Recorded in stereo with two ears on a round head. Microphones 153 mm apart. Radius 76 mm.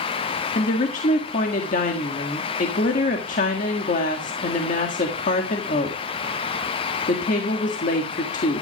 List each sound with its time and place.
0.6 s a woman speaking: 50° left (ahead or behind), 1.6 m